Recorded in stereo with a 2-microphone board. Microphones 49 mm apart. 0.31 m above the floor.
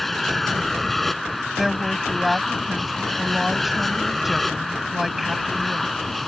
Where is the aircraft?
5° left (ahead or behind).